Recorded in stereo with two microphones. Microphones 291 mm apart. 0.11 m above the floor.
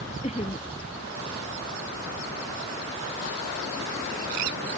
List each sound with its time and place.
0.2 s laughter: 20° left (ahead or behind)